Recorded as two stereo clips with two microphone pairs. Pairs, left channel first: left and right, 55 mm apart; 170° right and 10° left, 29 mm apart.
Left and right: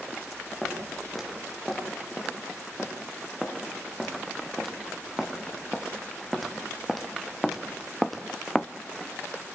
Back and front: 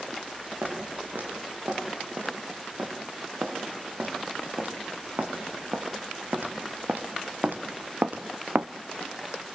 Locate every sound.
0.6 s footsteps: straight ahead, 9 m